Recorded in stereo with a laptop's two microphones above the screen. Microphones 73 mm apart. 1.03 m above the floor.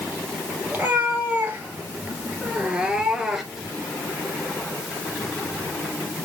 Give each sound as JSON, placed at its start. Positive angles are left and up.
{"t": 0.7, "sound": "a cat meowing", "side_deg": -25, "distance_m": 2.5}